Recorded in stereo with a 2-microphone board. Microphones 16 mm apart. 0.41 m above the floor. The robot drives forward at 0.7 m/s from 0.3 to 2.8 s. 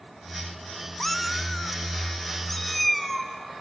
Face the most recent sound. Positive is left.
turn(degrees=5)  # may be behind; listen again after turning